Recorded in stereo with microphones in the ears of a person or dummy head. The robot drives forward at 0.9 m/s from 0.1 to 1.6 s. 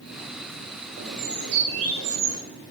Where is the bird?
65° right (ahead or behind), 3.5 m; by 2.4 s 70° right (ahead or behind), 3 m.